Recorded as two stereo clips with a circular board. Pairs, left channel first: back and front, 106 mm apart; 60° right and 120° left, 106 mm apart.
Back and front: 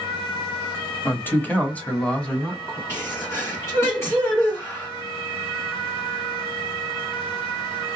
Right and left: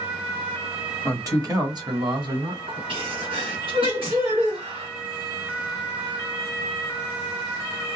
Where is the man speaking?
135° left, 1.1 m; by 2.8 s 100° left, 1.8 m.